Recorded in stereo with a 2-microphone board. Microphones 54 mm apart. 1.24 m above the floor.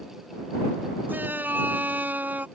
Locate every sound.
1.1 s a shout: 35° right (ahead or behind)